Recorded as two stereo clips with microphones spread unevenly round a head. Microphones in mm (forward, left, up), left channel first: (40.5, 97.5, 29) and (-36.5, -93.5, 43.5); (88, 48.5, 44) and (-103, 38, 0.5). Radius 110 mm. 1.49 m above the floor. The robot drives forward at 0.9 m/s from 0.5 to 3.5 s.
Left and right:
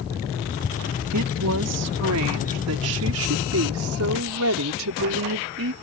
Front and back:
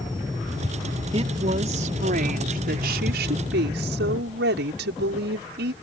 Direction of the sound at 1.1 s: 110° right.